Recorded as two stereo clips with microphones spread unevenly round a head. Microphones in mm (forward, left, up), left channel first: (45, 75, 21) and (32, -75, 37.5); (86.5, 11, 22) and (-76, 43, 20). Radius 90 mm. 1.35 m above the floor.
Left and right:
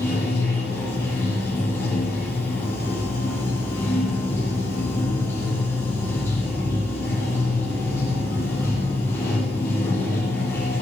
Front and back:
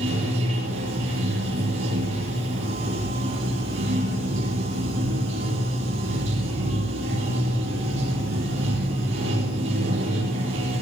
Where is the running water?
165° left, 8 m.